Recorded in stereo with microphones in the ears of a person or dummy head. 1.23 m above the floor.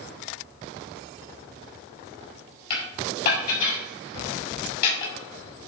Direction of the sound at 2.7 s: 60° left (ahead or behind).